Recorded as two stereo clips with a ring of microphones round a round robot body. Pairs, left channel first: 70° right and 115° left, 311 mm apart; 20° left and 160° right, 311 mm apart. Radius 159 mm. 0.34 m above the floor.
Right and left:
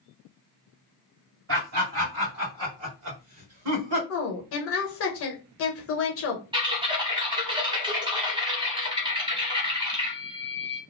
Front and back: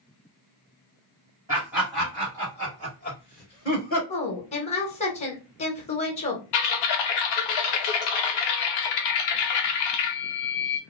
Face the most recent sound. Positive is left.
turn(degrees=35)